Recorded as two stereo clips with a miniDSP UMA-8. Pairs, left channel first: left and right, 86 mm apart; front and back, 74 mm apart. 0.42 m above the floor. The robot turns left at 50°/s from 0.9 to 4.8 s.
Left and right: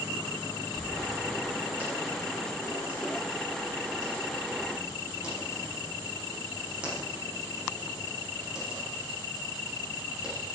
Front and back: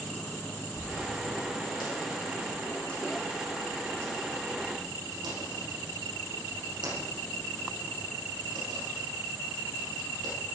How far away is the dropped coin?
About 10 m.